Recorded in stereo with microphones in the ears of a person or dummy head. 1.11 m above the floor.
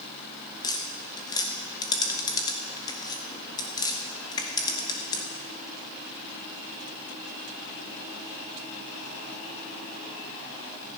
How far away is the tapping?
About 0.8 m.